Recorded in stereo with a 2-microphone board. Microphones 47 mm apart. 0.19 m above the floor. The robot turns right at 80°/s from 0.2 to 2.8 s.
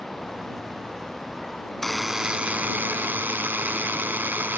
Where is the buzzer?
170° left; by 4.6 s 110° right.